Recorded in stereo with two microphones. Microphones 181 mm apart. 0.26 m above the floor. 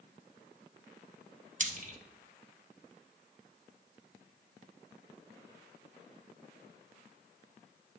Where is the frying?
45° right (ahead or behind), 0.6 m.